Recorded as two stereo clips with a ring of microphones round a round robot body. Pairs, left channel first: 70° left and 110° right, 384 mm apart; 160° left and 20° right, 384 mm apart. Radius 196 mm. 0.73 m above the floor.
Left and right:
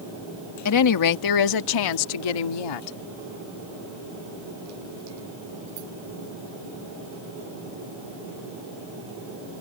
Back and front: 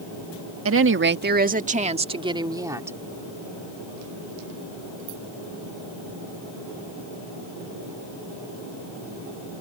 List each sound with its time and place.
0.7 s a woman speaking: 30° left; by 3.0 s 60° left